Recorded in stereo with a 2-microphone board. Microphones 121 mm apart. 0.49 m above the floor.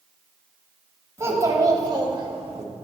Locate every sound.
1.2 s a child speaking: 25° right (ahead or behind), 1.8 m; by 2.6 s 55° right (ahead or behind), 1.0 m